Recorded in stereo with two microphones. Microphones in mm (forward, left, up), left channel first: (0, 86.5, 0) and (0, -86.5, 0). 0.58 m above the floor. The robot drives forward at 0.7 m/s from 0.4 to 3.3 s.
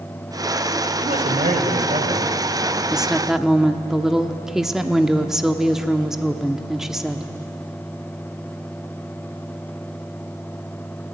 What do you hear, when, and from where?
1.0 s a man speaking: 55° right (ahead or behind), 2.5 m; by 2.8 s 40° right (ahead or behind), 3 m
2.9 s a woman speaking: 5° right (ahead or behind), 0.7 m; by 7.3 s centre (ahead or behind), 0.9 m